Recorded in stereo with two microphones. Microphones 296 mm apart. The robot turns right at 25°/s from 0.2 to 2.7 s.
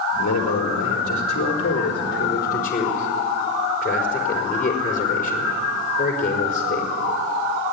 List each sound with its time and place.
0.2 s a man speaking: 90° left, 4 m; by 6.9 s 150° left, 4 m